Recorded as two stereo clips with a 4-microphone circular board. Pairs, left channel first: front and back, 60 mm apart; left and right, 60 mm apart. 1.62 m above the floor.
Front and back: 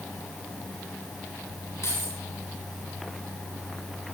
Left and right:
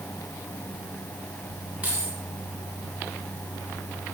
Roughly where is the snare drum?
I don't hear a snare drum.